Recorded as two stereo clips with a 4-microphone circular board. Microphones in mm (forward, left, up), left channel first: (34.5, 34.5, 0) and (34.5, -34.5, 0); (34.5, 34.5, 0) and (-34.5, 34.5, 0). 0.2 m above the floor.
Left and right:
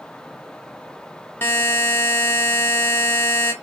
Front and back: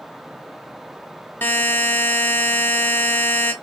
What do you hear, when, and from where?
1.4 s a buzzer: 45° left, 0.5 m